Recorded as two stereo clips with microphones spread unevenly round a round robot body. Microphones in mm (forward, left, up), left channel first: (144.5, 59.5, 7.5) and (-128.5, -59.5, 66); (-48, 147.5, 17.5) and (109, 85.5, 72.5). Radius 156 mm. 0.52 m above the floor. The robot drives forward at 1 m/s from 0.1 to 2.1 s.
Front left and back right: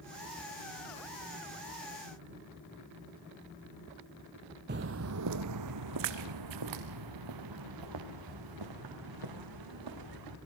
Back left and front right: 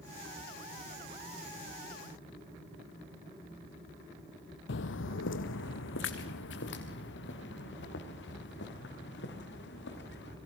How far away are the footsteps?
About 0.7 m.